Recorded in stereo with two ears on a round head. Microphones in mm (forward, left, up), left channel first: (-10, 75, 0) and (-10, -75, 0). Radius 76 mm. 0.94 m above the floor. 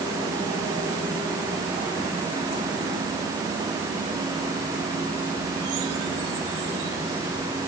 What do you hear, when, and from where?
Only background noise.